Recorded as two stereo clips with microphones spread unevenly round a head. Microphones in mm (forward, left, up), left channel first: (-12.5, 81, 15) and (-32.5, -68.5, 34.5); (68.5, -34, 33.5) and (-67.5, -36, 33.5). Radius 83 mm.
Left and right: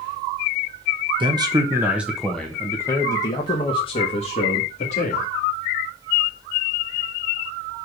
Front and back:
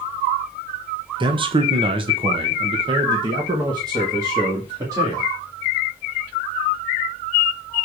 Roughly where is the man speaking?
Behind right.